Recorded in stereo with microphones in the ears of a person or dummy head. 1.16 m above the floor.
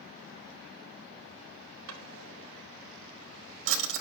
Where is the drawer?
75° right (ahead or behind), 1.9 m.